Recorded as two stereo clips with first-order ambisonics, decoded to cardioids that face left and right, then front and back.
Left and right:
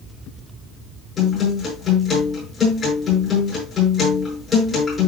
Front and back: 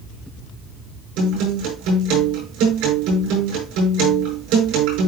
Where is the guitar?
165° left, 8.5 m.